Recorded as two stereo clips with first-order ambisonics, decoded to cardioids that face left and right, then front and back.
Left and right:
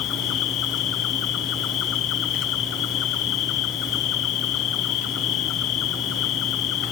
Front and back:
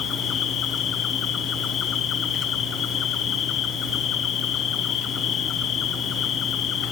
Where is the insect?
60° left, 0.8 m.